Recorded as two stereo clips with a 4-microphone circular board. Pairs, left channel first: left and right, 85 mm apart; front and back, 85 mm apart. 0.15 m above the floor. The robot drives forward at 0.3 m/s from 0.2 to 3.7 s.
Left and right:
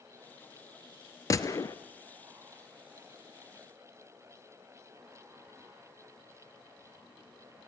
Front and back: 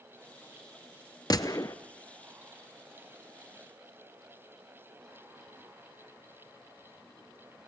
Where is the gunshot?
40° left, 1.0 m; by 1.8 s 45° left, 0.9 m.